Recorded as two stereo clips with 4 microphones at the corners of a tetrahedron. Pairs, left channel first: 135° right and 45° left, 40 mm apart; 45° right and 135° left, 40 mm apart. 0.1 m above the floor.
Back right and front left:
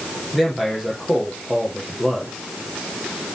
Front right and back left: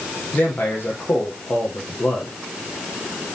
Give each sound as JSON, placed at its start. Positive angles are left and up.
{"t": 0.3, "sound": "a man speaking", "azimuth_deg": -40, "distance_m": 3.5}